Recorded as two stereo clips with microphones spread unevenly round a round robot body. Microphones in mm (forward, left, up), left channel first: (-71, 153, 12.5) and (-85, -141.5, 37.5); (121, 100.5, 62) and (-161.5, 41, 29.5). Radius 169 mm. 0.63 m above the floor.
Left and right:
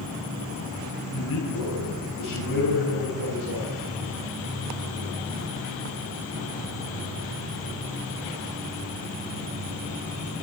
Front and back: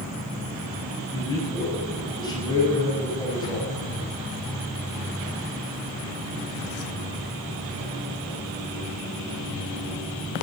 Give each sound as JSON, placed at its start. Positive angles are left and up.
{"t": 1.1, "sound": "a man speaking", "azimuth_deg": 85, "distance_m": 8.5}